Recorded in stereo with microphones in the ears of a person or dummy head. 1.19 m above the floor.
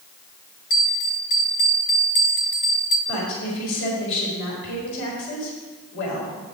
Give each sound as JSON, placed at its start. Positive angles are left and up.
{"t": 0.7, "sound": "a bell", "side_deg": 45, "distance_m": 0.8}
{"t": 3.1, "sound": "a woman speaking", "side_deg": 70, "distance_m": 4.0}